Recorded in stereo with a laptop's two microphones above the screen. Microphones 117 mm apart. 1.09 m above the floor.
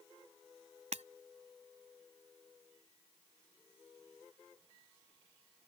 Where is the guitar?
No guitar in this recording.